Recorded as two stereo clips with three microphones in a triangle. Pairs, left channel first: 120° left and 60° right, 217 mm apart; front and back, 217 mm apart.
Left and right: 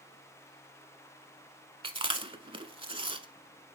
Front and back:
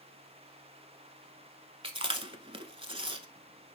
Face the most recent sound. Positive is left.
turn(degrees=-125)